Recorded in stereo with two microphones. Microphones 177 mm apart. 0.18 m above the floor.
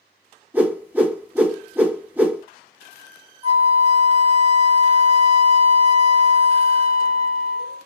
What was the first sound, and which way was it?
A whoosh, 10° right (ahead or behind).